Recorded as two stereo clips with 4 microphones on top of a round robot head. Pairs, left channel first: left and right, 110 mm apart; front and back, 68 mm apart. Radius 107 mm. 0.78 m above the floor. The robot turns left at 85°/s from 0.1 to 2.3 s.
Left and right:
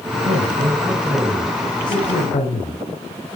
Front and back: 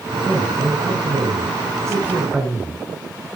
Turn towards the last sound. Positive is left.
turn(degrees=100)